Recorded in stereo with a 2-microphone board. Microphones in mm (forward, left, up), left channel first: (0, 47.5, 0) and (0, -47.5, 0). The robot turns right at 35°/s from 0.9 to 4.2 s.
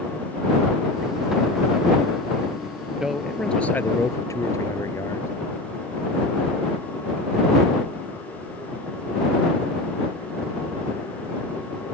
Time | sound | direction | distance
3.0 | a man speaking | 10° right | ?